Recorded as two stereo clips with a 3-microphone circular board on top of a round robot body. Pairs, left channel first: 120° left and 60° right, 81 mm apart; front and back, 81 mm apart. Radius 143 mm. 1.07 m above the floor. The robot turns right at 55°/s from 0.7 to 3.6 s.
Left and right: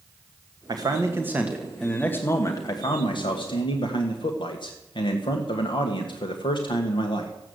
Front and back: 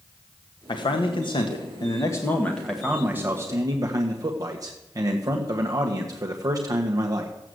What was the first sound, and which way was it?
A man speaking, 25° right.